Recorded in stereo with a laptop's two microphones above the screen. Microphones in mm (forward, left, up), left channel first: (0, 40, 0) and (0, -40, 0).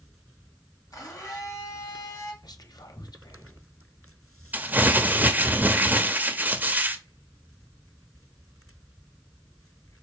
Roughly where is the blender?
Left.